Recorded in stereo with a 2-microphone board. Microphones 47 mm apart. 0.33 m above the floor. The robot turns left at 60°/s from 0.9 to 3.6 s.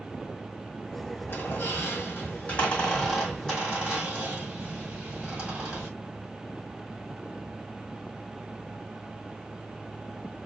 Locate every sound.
1.3 s a squeak: 55° left (ahead or behind), 1.4 m; by 5.9 s 20° right (ahead or behind), 1.4 m